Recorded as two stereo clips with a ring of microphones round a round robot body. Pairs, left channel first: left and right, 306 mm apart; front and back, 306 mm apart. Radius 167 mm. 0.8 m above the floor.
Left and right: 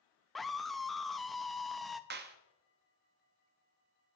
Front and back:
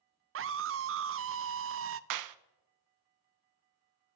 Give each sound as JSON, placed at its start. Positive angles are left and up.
{"t": 0.3, "sound": "a scream", "azimuth_deg": 180, "distance_m": 0.5}
{"t": 2.1, "sound": "a clap", "azimuth_deg": -150, "distance_m": 0.6}